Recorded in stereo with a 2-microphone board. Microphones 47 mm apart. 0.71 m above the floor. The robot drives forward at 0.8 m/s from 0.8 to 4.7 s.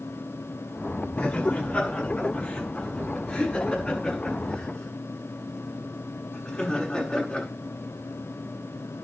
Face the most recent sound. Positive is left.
turn(degrees=15)  # may be behind; listen again after turning